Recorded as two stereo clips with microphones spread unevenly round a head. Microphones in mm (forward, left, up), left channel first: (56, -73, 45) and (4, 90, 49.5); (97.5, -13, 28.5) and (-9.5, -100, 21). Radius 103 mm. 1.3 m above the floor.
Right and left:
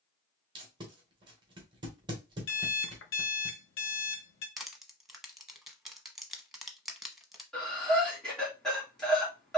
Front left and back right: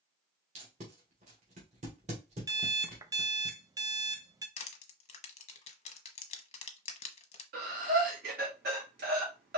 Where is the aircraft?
I don't hear an aircraft.